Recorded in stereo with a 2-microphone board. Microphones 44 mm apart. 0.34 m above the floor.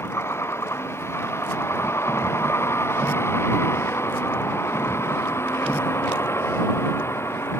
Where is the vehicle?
75° left (ahead or behind).